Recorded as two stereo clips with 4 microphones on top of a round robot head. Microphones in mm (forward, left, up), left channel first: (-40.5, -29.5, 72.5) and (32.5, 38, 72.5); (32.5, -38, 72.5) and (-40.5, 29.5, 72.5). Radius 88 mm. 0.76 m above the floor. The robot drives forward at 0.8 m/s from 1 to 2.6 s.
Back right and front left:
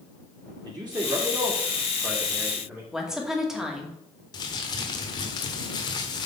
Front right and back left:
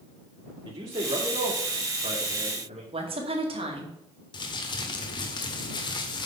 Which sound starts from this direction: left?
A man speaking, at 0.7 s.